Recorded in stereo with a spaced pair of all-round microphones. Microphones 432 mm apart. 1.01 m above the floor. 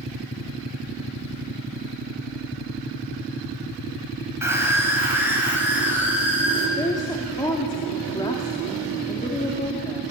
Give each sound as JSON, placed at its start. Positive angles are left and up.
{"t": 4.4, "sound": "a scream", "side_deg": -5, "distance_m": 7.5}
{"t": 6.8, "sound": "a woman speaking", "side_deg": 10, "distance_m": 2.5}